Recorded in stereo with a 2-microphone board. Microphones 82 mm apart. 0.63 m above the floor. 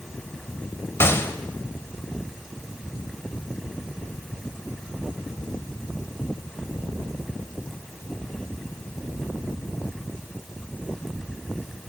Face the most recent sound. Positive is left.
turn(degrees=30)  # may be behind; listen again after turning